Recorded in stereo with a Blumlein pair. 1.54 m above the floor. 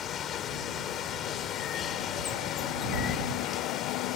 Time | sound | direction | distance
0.0 | running water | 25° left | ?